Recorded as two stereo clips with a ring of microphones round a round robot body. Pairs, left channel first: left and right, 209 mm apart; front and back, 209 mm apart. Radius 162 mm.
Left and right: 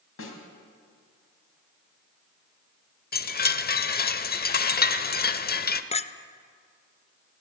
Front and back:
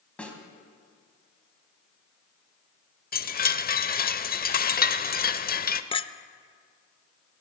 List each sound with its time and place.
0.2 s a snare drum: 85° left, 2.5 m
3.1 s a chime: 45° left, 0.8 m
5.9 s a clink: 50° left, 0.6 m